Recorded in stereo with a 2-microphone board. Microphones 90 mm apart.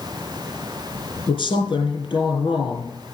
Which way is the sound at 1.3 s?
70° left (ahead or behind).